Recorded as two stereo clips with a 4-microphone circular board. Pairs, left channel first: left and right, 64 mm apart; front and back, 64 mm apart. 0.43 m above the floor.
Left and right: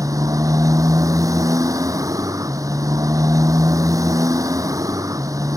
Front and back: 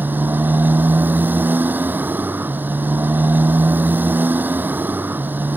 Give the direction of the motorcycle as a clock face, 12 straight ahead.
4 o'clock.